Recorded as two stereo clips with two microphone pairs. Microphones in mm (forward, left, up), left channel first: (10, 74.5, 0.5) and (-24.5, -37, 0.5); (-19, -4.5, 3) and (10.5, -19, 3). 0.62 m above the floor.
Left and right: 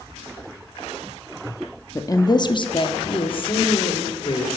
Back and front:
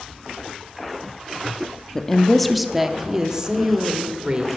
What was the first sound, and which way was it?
A woman speaking, 110° left.